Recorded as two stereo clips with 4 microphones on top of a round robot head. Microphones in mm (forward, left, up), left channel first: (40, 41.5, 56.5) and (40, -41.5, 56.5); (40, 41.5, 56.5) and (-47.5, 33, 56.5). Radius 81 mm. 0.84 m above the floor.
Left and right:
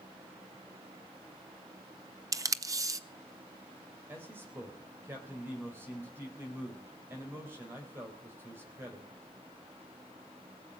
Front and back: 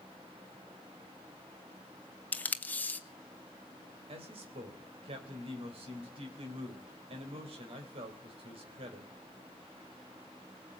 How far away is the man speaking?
About 3.5 m.